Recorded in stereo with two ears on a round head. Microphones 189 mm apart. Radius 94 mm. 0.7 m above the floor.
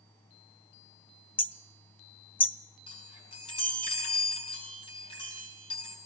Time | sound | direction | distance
1.4 | hammering | 10° left (ahead or behind) | 0.5 m
2.9 | a chime | 25° left (ahead or behind) | 7.5 m